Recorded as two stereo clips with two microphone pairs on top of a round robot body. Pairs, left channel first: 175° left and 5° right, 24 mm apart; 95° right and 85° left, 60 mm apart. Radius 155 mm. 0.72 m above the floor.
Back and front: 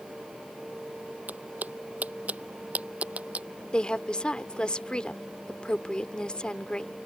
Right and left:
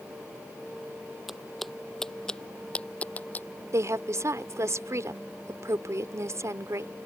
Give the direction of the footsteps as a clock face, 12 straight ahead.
12 o'clock.